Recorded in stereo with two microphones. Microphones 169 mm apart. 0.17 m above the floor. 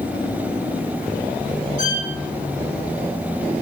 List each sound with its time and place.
1.8 s a violin: 50° left (ahead or behind), 2.5 m